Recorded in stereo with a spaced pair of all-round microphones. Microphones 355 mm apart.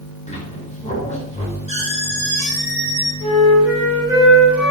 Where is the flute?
5° right (ahead or behind), 5.5 m.